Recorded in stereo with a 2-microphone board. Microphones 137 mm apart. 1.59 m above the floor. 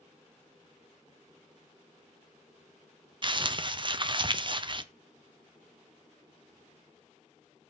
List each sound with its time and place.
3.2 s crumpling: 35° right (ahead or behind), 0.5 m